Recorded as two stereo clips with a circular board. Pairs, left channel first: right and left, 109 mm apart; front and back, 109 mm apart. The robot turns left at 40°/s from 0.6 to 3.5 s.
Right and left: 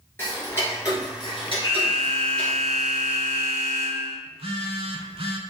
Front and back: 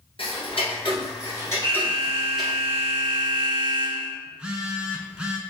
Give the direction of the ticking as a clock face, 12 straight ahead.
1 o'clock.